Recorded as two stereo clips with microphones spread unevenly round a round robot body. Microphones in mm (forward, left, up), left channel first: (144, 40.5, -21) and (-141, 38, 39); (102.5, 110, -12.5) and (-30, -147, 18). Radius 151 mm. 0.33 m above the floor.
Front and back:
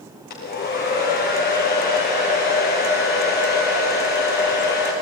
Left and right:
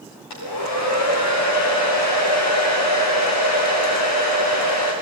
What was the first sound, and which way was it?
A hair dryer, 60° left.